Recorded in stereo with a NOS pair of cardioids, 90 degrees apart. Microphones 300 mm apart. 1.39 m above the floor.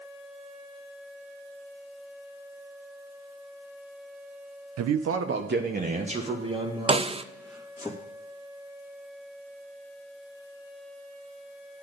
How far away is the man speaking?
About 0.8 m.